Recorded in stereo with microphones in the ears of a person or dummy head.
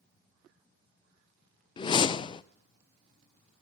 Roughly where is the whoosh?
Left.